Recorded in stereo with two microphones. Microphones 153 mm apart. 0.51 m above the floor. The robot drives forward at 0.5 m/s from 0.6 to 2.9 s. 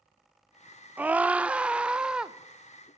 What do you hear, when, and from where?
1.0 s a scream: 10° right (ahead or behind), 0.8 m; by 2.4 s 5° right (ahead or behind), 1.3 m